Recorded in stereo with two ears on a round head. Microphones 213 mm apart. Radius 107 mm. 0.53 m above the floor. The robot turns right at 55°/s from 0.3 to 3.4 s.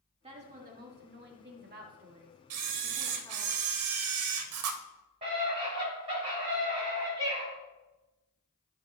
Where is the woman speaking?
145° right, 1.6 m; by 3.5 s 25° left, 1.6 m.